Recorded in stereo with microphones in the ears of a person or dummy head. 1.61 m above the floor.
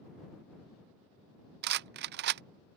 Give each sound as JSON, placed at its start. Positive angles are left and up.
{"t": 1.6, "sound": "a rattle", "side_deg": -60}